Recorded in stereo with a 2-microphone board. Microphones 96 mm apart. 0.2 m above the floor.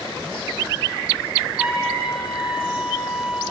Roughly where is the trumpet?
Centre.